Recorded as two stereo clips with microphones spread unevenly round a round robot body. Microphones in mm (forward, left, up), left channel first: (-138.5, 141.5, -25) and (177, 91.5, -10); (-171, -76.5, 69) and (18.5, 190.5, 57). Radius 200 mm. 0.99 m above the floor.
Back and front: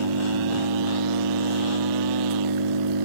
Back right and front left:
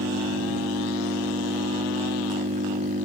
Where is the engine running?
20° right.